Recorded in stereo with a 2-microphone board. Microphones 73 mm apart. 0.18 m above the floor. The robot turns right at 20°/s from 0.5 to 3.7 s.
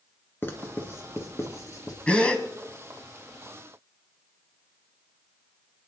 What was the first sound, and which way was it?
Writing, 30° left (ahead or behind).